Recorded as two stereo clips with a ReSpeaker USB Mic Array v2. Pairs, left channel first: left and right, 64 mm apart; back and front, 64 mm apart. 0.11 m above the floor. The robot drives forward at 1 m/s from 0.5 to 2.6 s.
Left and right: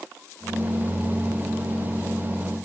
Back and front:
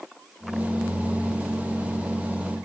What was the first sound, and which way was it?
Only background noise.